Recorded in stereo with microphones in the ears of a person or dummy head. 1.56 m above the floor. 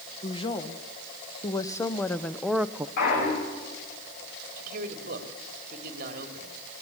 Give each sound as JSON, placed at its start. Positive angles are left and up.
{"t": 0.2, "sound": "a woman speaking", "side_deg": 30, "distance_m": 2.0}
{"t": 3.0, "sound": "a clunk", "side_deg": 60, "distance_m": 8.0}
{"t": 4.6, "sound": "a man speaking", "side_deg": -50, "distance_m": 3.5}